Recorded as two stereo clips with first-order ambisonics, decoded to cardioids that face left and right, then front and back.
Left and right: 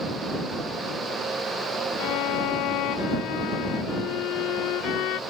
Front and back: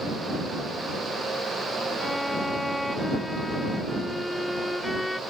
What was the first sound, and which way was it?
A violin, 85° left.